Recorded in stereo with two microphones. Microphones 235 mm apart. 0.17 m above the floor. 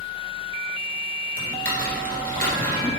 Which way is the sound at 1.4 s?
40° right (ahead or behind).